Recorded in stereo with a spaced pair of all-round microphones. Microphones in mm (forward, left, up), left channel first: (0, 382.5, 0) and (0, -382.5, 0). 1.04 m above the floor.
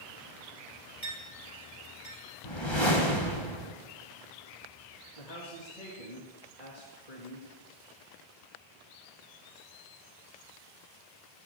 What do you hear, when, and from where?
1.0 s a clink: 40° left (ahead or behind), 3.5 m
2.4 s a whoosh: 35° left (ahead or behind), 1.5 m
5.2 s a man speaking: 60° left (ahead or behind), 1.7 m